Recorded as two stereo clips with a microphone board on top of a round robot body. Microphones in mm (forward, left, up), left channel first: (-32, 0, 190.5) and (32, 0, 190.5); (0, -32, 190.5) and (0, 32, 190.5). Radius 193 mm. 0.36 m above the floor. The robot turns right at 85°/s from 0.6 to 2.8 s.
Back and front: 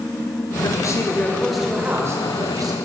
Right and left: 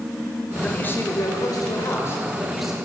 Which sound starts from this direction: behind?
A man speaking, at 0.6 s.